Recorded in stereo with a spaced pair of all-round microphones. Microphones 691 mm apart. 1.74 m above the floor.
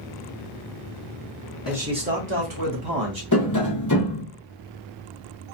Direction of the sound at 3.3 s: 25° left (ahead or behind).